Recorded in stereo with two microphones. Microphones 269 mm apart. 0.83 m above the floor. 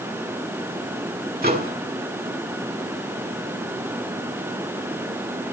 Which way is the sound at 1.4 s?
35° right (ahead or behind).